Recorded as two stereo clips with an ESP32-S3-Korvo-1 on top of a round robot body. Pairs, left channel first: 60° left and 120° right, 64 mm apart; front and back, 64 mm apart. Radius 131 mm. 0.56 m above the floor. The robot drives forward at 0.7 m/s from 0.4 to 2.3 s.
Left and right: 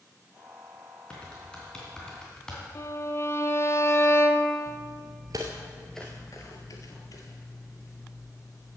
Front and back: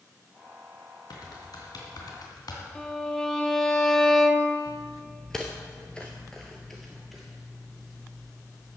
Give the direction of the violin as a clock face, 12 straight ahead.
9 o'clock.